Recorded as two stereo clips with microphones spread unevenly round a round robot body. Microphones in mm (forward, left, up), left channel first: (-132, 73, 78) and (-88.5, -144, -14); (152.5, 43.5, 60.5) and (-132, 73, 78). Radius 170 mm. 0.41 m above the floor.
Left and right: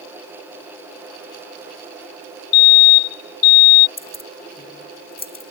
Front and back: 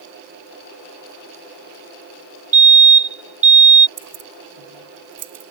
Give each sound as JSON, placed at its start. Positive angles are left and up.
{"t": 2.5, "sound": "a fire alarm", "azimuth_deg": 110}
{"t": 4.0, "sound": "keys jangling", "azimuth_deg": 150}